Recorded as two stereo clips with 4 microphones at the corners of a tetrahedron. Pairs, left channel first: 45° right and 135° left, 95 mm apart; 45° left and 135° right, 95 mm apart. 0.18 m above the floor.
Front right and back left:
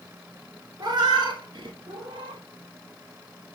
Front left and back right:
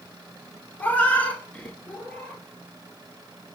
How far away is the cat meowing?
About 0.6 m.